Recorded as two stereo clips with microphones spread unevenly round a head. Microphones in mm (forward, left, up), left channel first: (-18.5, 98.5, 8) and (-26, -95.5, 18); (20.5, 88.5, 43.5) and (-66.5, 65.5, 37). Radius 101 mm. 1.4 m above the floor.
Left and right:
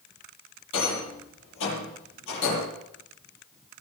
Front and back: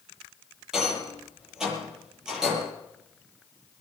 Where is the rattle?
110° left, 8.5 m.